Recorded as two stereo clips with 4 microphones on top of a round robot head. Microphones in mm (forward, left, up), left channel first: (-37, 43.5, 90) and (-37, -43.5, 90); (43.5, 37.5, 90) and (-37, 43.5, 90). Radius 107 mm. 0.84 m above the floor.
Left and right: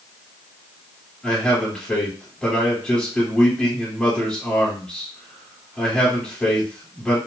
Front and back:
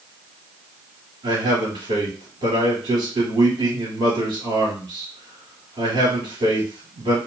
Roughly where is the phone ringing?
I don't hear a phone ringing.